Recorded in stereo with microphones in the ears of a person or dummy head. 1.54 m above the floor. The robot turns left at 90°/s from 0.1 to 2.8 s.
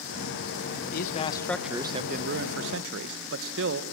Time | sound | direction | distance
0.9 | a man speaking | 65° left | 1.2 m